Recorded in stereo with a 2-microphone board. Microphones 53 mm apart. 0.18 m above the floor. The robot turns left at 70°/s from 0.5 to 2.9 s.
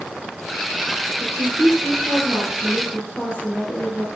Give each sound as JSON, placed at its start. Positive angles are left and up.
{"t": 1.2, "sound": "a woman speaking", "azimuth_deg": -90, "distance_m": 6.0}